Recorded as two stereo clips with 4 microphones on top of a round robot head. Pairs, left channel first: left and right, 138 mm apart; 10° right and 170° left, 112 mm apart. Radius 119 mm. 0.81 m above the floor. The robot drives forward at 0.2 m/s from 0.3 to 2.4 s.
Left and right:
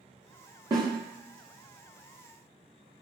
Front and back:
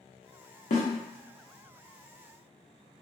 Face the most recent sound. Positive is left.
turn(degrees=-55)